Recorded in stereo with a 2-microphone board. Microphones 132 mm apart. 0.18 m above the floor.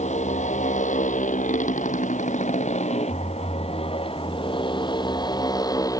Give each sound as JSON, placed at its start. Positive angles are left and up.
{"t": 0.0, "sound": "a motorcycle", "side_deg": 70}